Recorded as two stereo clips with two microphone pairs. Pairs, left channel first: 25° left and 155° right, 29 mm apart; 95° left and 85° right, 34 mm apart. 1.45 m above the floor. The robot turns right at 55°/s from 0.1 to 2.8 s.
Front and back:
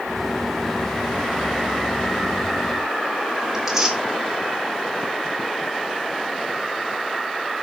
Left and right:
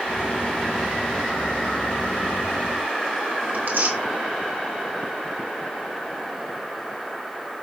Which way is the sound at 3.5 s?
80° right.